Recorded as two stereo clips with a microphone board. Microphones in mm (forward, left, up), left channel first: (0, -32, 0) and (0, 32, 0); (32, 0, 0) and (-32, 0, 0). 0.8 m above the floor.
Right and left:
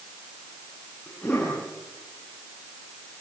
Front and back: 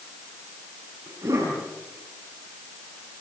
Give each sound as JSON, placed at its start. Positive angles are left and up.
{"t": 1.1, "sound": "a cough", "azimuth_deg": -165, "distance_m": 9.5}